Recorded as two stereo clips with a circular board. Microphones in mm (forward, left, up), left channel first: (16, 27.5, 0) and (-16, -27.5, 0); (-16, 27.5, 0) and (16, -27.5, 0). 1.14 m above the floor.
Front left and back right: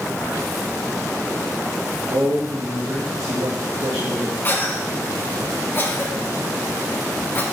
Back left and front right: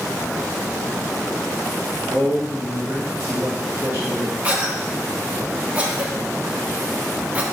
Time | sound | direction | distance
2.1 | a man speaking | 105° right | 1.5 m
4.4 | a cough | 5° left | 1.4 m